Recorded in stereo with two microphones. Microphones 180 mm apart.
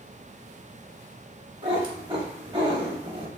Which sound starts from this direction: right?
A cat meowing, at 1.6 s.